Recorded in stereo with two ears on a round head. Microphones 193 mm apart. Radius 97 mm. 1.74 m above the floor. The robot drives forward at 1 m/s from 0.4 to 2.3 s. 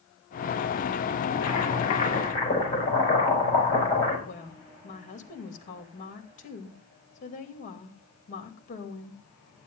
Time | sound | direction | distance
1.3 | boiling | 30° left (ahead or behind) | 4 m
4.3 | a woman speaking | 35° left (ahead or behind) | 2.5 m